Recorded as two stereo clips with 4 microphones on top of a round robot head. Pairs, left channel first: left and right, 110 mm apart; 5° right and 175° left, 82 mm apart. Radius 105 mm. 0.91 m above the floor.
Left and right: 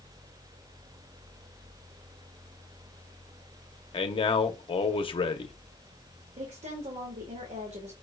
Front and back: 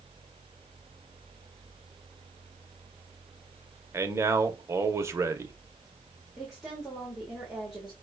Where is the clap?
I don't hear a clap.